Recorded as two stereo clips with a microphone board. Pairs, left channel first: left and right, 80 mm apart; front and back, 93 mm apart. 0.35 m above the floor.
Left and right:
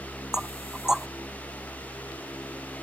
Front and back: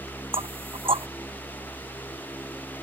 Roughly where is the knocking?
Behind.